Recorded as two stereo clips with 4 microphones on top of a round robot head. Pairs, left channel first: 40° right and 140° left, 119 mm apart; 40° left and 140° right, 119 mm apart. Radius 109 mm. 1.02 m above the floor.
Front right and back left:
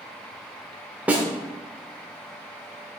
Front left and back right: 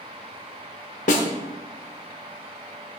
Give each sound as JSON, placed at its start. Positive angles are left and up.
{"t": 1.1, "sound": "a snare drum", "azimuth_deg": 60, "distance_m": 0.9}